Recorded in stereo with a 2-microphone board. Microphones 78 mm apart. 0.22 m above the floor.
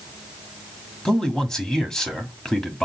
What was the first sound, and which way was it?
A man speaking, 10° left (ahead or behind).